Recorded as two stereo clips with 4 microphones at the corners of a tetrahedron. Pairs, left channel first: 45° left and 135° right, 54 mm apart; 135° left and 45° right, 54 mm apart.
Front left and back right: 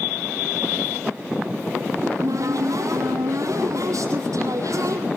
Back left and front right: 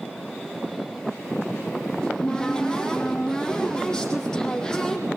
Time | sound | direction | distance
2.0 | a cupboard door | 145° right | 5 m